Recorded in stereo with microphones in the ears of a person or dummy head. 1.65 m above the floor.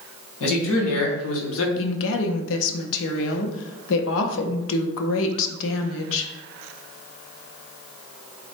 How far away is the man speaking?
About 1.6 m.